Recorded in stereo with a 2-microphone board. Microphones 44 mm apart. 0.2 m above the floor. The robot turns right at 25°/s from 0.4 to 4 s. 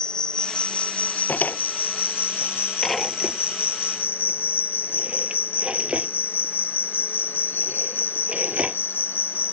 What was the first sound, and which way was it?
An insect, 25° left.